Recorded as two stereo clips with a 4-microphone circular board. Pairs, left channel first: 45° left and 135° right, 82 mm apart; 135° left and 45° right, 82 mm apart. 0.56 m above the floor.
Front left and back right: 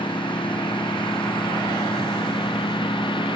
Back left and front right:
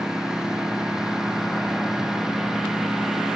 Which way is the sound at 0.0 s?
40° left.